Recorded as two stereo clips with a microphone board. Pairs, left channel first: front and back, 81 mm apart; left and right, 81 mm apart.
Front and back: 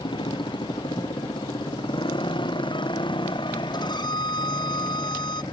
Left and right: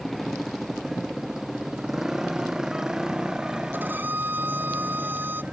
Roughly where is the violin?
Ahead right.